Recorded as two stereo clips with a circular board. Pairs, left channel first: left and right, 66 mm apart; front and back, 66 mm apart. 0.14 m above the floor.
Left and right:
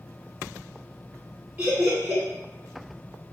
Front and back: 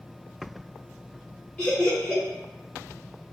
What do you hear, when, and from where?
1.6 s laughter: 55° right, 1.4 m